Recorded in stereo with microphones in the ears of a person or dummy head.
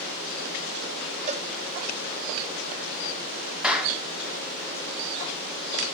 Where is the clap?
5° right (ahead or behind), 2 m.